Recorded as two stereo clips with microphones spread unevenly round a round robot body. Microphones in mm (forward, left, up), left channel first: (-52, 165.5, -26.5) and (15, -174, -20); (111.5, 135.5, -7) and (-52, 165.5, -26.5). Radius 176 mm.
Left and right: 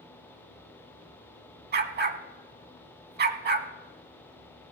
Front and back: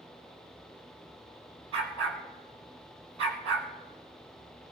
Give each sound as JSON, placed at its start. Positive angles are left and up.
{"t": 1.7, "sound": "a dog barking", "azimuth_deg": -145, "distance_m": 0.7}